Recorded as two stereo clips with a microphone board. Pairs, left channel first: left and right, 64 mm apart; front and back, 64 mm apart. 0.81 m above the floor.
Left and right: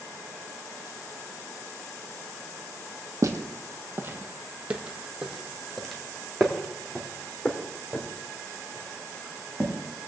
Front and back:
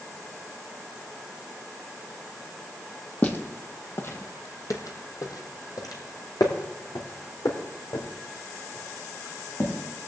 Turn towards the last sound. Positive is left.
turn(degrees=30)